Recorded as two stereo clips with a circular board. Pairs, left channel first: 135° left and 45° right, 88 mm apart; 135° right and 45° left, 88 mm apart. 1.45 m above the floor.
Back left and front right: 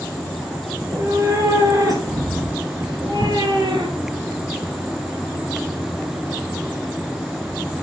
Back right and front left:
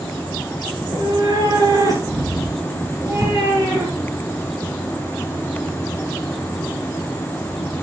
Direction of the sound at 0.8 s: 10° left.